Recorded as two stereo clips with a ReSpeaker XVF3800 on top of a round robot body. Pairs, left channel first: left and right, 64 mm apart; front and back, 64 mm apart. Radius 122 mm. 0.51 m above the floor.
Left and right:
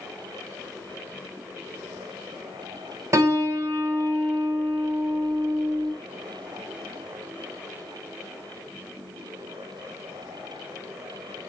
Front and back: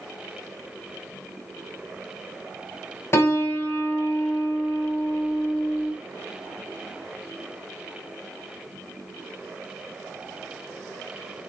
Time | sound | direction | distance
3.1 | a piano | 45° right | 3 m